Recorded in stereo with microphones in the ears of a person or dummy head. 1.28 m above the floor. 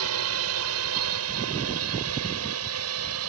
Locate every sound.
0.0 s a drone: 75° right (ahead or behind)